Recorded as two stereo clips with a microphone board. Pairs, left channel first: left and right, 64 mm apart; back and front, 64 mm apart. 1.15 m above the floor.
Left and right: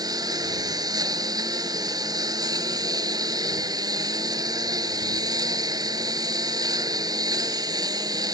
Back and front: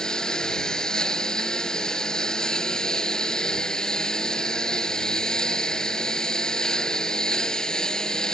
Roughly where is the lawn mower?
Right.